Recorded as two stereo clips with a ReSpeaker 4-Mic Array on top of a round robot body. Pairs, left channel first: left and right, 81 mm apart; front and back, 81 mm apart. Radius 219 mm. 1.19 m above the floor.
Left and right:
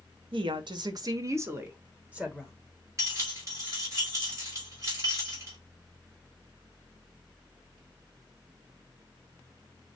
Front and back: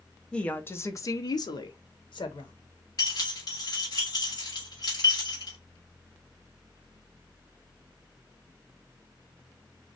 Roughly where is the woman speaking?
Right.